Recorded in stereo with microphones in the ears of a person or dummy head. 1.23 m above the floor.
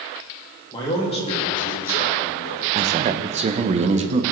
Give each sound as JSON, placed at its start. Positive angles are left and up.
{"t": 0.7, "sound": "a man speaking", "side_deg": 25, "distance_m": 2.0}
{"t": 2.8, "sound": "a man speaking", "side_deg": -30, "distance_m": 0.7}